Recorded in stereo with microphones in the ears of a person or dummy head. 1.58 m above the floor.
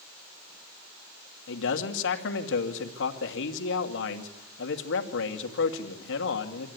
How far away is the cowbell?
I don't hear a cowbell.